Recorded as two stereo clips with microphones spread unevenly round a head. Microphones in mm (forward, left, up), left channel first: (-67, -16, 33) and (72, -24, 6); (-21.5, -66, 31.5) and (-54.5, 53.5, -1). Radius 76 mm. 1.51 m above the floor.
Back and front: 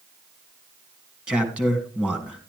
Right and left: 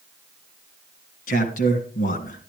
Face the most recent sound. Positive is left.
turn(degrees=-85)